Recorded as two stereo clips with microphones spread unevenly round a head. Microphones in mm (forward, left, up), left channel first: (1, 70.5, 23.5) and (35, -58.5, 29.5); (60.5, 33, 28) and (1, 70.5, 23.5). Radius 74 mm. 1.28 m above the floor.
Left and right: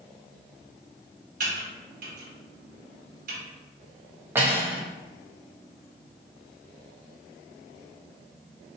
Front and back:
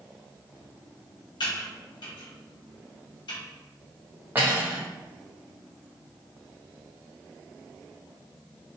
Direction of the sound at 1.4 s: 60° right.